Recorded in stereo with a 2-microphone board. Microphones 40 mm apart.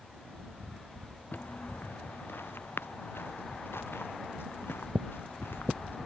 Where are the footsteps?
50° left (ahead or behind); by 6.1 s 75° left (ahead or behind).